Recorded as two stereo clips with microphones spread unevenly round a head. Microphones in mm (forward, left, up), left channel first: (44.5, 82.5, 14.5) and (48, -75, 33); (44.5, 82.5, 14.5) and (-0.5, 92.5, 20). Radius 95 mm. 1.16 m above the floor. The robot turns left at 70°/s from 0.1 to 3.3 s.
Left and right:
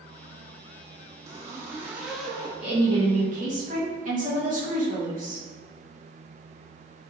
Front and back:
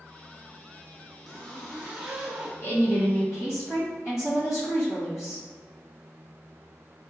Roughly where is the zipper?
Right.